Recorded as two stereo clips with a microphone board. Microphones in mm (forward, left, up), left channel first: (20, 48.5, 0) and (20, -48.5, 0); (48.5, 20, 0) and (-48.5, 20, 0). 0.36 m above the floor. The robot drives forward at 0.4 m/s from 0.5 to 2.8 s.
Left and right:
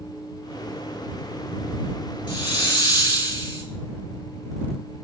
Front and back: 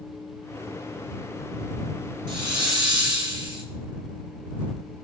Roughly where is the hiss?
Behind left.